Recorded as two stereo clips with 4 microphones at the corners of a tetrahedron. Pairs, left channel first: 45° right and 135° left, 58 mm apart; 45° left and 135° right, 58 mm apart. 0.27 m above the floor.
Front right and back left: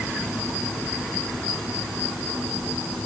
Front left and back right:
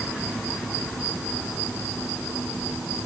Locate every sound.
Only background noise.